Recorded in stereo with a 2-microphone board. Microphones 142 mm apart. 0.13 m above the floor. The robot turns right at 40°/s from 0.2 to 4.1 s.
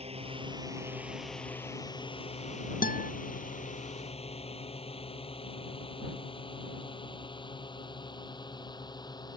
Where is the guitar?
75° left (ahead or behind); by 3.1 s 80° left.